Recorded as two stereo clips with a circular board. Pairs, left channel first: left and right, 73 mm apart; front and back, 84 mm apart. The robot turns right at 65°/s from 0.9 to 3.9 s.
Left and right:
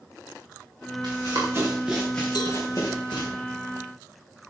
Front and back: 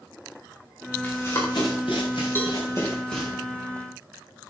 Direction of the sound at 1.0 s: 70° right.